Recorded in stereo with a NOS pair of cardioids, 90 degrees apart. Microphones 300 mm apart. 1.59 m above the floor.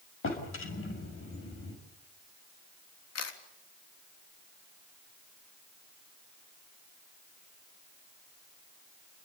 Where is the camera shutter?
55° left, 3.5 m.